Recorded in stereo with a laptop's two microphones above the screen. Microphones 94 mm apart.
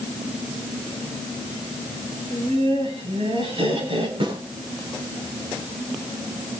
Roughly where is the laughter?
Right.